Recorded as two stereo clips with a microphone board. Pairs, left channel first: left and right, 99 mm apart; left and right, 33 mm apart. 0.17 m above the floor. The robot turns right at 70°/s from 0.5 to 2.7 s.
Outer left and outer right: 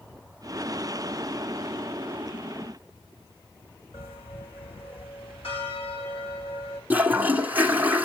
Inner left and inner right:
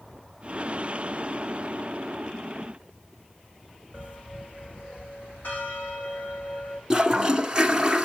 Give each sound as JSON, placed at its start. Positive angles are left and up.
{"t": 3.9, "sound": "a bell", "side_deg": 75, "distance_m": 8.5}
{"t": 6.9, "sound": "a toilet flushing", "side_deg": -20, "distance_m": 1.3}